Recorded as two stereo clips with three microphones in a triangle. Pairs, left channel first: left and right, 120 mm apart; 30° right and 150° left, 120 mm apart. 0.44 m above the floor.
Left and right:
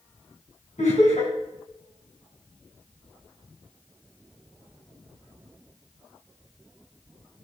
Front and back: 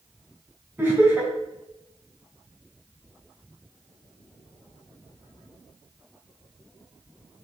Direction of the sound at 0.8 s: 80° left.